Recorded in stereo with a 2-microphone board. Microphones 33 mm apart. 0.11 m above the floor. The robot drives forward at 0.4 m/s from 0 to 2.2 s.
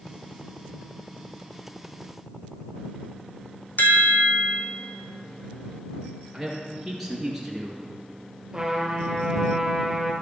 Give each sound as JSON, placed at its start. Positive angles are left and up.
{"t": 3.8, "sound": "a chime", "side_deg": 65, "distance_m": 0.8}
{"t": 6.3, "sound": "a man speaking", "side_deg": 0, "distance_m": 2.0}
{"t": 8.5, "sound": "a trumpet", "side_deg": -15, "distance_m": 1.5}